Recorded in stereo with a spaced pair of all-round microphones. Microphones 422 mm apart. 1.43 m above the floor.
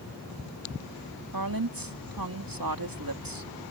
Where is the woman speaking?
55° right (ahead or behind).